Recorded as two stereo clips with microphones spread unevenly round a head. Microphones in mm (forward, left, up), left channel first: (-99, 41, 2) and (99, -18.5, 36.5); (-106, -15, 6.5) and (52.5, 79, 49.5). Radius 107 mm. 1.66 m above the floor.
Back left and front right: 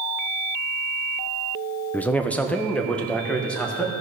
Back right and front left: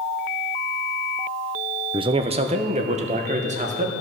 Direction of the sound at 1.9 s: 75° left.